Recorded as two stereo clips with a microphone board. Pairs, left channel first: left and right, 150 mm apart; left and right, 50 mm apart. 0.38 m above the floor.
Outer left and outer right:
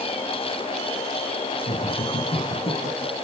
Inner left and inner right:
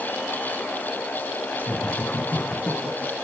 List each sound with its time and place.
1.7 s laughter: 30° left (ahead or behind), 3.5 m; by 3.1 s 45° left (ahead or behind), 5 m